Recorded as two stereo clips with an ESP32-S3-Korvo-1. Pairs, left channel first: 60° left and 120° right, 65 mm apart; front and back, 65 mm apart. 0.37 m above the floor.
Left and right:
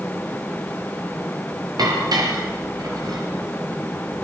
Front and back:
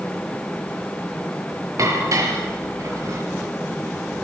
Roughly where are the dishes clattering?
Behind right.